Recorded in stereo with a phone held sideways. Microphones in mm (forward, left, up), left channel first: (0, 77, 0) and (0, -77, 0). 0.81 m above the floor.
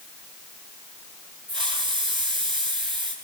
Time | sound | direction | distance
1.5 | a hiss | 30° right (ahead or behind) | 9.5 m